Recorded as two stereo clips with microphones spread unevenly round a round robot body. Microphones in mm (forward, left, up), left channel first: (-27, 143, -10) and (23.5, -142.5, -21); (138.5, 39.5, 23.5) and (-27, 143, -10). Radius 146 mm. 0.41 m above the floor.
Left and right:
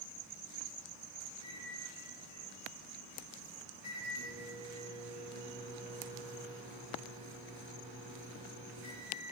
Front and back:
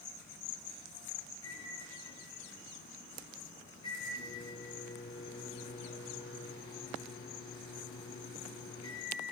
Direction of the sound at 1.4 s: 80° right.